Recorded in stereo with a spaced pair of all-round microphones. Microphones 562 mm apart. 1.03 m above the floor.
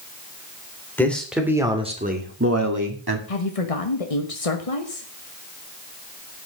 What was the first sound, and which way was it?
A man speaking, 5° left (ahead or behind).